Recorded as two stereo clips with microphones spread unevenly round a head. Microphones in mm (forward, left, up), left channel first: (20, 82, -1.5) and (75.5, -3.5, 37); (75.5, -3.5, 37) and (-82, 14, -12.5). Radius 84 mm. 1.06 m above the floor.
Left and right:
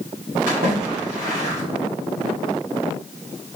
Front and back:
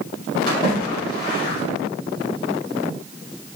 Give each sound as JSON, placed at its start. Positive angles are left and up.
{"t": 0.5, "sound": "a splash", "azimuth_deg": -75, "distance_m": 1.9}